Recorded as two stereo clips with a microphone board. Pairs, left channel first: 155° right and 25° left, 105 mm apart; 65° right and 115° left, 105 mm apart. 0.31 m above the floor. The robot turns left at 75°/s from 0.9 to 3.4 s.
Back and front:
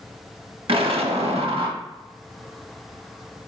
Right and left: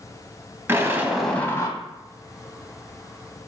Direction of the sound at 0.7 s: 45° left.